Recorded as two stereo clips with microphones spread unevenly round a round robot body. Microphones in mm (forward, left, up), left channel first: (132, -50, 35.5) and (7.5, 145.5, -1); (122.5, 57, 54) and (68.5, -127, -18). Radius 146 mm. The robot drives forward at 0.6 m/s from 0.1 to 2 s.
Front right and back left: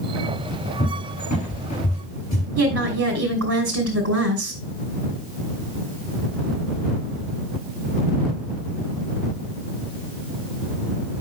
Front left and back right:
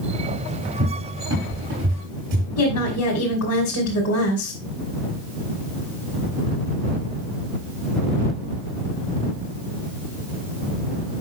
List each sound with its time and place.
0.8 s a cupboard door: 120° right, 4 m; by 2.5 s 125° right, 4.5 m
2.6 s a woman speaking: 100° left, 2.5 m